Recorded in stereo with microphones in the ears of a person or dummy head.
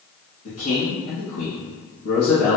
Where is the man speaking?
80° left, 1.7 m.